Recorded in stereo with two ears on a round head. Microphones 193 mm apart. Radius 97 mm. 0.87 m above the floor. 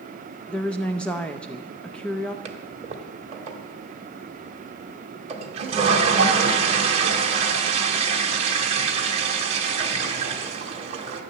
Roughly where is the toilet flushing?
Right.